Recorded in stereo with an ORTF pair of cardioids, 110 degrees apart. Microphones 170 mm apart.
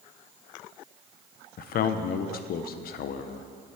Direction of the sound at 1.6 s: 60° left.